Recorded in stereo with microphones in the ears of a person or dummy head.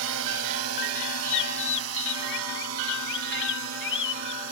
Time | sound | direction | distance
0.0 | a drone | 75° right (ahead or behind) | ?
1.3 | a bird | 60° left (ahead or behind) | ?